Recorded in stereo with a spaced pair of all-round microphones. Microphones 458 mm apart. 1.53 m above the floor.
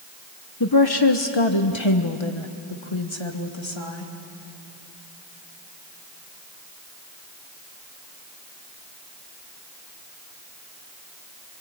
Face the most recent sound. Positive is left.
turn(degrees=70)  # may be behind; listen again after turning